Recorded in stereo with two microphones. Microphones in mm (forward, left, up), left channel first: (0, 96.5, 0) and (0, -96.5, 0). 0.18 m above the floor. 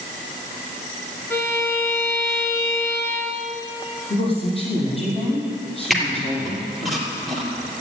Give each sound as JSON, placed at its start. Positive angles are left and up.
{"t": 1.3, "sound": "a violin", "side_deg": 15, "distance_m": 1.9}
{"t": 4.1, "sound": "a woman speaking", "side_deg": 30, "distance_m": 5.5}
{"t": 5.9, "sound": "a squeak", "side_deg": 0, "distance_m": 3.0}